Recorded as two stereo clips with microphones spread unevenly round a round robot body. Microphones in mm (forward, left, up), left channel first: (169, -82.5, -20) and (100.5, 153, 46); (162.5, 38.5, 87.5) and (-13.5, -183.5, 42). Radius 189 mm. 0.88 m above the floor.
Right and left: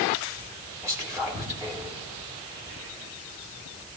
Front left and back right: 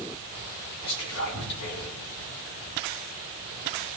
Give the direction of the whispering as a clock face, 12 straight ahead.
11 o'clock.